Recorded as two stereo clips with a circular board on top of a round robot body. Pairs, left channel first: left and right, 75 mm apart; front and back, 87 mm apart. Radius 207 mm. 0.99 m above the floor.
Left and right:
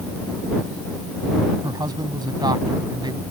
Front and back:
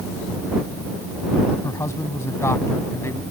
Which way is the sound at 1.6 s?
60° right.